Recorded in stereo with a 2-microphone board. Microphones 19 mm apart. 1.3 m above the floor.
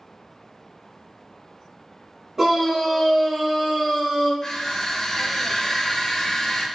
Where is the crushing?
35° left (ahead or behind), 1.1 m.